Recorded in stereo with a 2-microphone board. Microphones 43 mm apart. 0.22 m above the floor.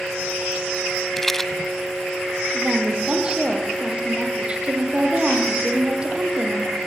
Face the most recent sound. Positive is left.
turn(degrees=-25)  # may be behind; listen again after turning